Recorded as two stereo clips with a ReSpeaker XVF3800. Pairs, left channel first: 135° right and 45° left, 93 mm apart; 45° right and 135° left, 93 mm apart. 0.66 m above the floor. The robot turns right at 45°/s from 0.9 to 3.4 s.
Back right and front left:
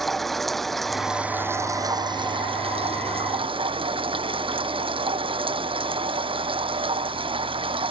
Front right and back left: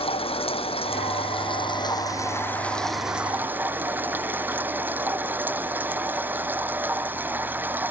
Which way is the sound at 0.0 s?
45° right.